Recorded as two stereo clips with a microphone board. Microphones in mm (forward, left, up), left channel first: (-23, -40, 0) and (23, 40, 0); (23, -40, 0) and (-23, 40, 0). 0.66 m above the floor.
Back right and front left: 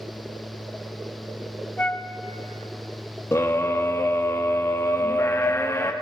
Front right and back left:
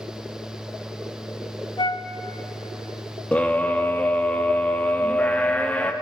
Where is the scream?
120° right, 0.8 m.